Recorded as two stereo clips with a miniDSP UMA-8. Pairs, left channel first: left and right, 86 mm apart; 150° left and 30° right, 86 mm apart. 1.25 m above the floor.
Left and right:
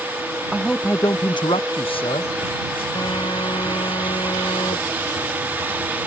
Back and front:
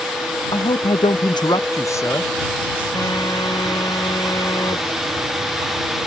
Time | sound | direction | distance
0.5 | a man speaking | 175° right | ?
3.0 | a phone buzzing | 110° left | ?